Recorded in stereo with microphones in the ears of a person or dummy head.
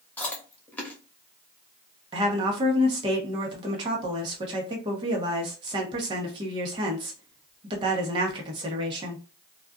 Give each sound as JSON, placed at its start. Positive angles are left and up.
{"t": 0.2, "sound": "chewing", "side_deg": 0, "distance_m": 0.7}
{"t": 2.1, "sound": "a woman speaking", "side_deg": -30, "distance_m": 0.9}